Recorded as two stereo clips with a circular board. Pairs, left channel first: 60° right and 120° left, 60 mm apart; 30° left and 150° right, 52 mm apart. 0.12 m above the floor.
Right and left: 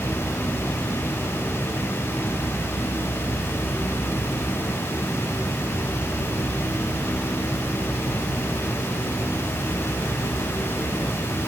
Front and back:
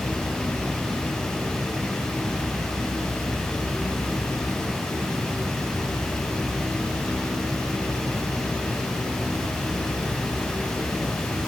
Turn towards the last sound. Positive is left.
No sound to turn to.